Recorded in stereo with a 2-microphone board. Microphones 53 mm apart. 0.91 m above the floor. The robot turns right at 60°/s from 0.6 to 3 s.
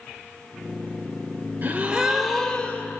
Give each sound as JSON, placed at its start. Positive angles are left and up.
{"t": 1.6, "sound": "a gasp", "azimuth_deg": -40, "distance_m": 2.0}